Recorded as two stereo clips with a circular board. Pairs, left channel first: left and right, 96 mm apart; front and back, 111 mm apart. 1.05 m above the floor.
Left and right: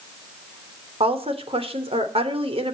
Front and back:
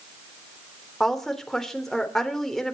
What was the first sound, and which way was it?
A woman speaking, 90° right.